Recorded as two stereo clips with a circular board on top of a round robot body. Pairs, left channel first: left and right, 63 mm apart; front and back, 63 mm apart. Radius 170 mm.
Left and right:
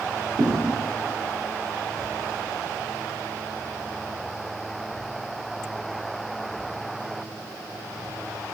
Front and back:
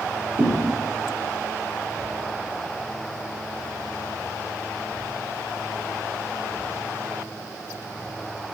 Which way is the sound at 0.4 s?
130° right.